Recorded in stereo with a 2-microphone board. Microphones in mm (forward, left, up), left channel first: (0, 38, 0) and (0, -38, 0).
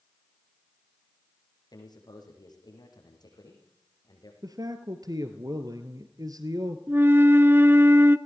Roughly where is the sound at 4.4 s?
Right.